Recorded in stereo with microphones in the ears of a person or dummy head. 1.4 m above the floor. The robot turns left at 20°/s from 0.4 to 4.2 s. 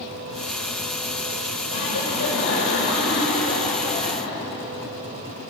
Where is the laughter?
90° left, 7.5 m; by 4.5 s 40° left, 7.5 m.